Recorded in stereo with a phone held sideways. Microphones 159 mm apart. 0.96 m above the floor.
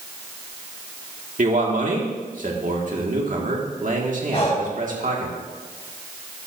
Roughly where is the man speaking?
Right.